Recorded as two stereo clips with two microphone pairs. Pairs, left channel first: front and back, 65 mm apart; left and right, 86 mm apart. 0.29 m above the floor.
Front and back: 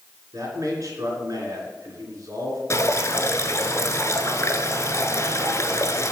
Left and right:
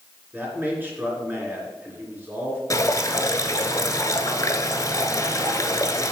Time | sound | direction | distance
0.3 | a man speaking | 155° right | 2.5 m
2.7 | dripping | 45° left | 0.9 m